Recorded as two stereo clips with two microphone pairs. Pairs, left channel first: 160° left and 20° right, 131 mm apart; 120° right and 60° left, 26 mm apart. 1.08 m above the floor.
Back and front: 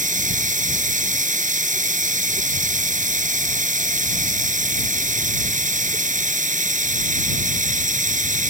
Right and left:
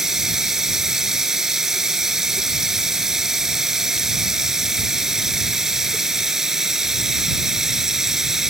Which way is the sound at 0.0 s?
10° right.